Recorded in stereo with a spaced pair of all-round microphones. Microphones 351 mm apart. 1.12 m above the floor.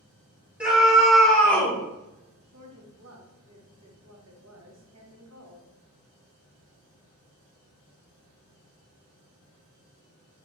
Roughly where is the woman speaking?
Right.